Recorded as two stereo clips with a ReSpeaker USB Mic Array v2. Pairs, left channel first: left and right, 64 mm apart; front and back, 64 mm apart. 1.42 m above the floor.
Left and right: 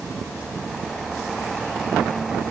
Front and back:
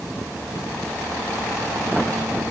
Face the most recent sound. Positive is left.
No sound to turn to.